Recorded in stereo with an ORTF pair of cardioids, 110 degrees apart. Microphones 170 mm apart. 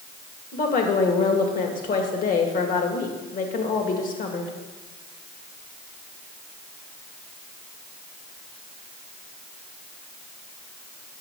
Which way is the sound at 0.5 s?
55° left.